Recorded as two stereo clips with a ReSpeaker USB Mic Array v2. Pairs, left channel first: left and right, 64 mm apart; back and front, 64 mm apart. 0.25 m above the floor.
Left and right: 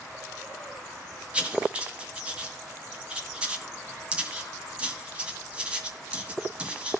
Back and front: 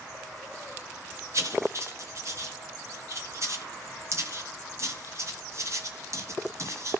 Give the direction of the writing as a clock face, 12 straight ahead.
1 o'clock.